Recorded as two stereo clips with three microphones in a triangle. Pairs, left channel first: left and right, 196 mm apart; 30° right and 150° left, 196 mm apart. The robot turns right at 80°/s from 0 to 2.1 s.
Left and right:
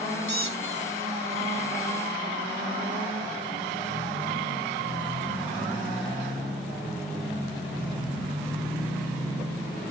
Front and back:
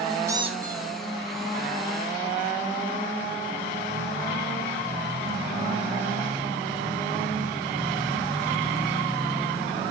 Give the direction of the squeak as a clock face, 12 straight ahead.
10 o'clock.